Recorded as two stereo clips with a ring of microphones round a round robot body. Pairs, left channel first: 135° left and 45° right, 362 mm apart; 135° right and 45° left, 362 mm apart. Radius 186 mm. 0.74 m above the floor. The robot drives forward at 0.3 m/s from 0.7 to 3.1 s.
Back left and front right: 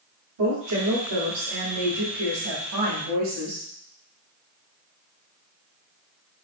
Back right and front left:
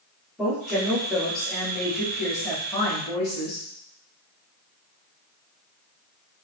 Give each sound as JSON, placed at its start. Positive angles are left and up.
{"t": 0.4, "sound": "a woman speaking", "azimuth_deg": -40, "distance_m": 1.9}